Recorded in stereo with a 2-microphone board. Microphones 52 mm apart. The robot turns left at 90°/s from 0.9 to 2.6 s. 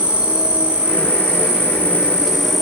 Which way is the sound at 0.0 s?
35° right.